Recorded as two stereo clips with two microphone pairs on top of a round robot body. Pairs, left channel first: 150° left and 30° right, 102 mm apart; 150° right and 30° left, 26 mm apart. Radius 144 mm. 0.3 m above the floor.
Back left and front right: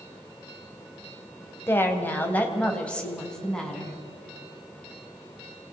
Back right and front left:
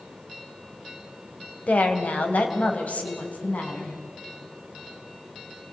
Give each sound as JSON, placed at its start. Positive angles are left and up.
{"t": 1.7, "sound": "a woman speaking", "azimuth_deg": -145, "distance_m": 2.5}